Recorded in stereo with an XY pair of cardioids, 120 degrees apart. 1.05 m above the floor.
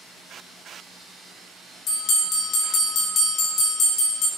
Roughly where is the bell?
Ahead left.